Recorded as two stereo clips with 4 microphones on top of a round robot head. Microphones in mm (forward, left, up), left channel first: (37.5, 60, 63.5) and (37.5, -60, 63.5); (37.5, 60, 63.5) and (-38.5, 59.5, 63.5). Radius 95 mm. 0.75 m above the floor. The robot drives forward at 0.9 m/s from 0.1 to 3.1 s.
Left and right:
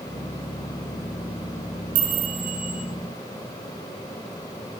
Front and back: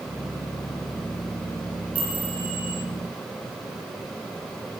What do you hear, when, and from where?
1.9 s a chime: 100° right, 9 m; by 2.8 s 105° right, 9 m